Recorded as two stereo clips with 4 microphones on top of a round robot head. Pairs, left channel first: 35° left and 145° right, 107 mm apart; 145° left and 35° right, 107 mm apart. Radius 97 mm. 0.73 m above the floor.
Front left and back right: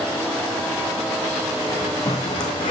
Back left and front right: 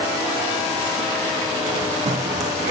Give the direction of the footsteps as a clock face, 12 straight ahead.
1 o'clock.